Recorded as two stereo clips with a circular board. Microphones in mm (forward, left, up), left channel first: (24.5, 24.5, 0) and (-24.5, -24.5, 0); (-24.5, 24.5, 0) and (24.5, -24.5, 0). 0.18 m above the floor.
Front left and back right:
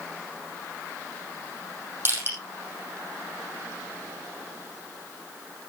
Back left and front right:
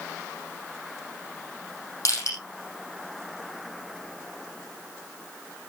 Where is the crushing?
170° left, 5 m.